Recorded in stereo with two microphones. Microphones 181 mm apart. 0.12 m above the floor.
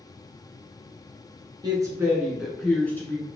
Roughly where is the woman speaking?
Right.